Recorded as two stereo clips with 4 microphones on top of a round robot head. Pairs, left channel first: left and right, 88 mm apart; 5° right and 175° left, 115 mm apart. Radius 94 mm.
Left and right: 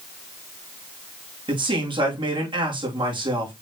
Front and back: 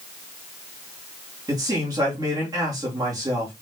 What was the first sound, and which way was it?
A man speaking, 120° right.